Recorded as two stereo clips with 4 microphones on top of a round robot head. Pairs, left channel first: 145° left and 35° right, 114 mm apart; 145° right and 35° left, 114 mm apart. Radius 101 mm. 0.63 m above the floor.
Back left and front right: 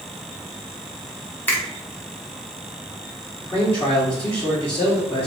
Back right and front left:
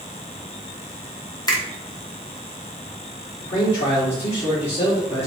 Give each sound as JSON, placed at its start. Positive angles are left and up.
{"t": 1.5, "sound": "a finger snap", "azimuth_deg": -155, "distance_m": 1.1}
{"t": 3.4, "sound": "a man speaking", "azimuth_deg": -145, "distance_m": 1.5}